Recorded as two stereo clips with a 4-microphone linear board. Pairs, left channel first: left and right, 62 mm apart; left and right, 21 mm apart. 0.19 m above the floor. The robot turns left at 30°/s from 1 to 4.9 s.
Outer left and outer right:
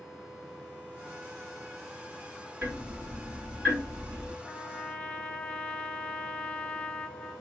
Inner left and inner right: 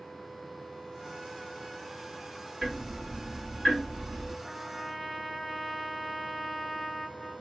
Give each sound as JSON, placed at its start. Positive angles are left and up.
{"t": 2.6, "sound": "ticking", "side_deg": -30, "distance_m": 2.5}
{"t": 4.4, "sound": "a trumpet", "side_deg": 10, "distance_m": 0.6}